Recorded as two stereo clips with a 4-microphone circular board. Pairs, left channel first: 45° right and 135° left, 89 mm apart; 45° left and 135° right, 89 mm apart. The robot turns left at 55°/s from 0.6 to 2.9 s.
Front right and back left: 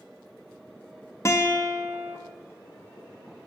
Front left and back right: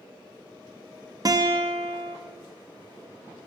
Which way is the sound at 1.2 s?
100° right.